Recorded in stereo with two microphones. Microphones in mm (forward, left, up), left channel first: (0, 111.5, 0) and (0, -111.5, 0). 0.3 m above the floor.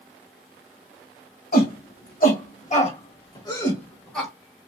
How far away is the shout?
About 1.7 m.